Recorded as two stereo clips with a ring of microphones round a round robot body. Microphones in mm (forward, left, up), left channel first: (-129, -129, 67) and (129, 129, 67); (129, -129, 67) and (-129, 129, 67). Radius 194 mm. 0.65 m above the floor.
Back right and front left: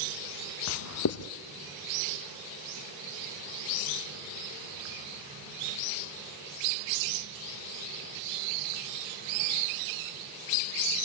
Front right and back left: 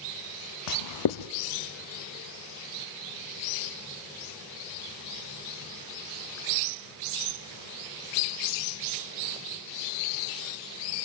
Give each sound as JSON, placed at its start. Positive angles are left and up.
{"t": 0.7, "sound": "writing", "azimuth_deg": -85, "distance_m": 0.7}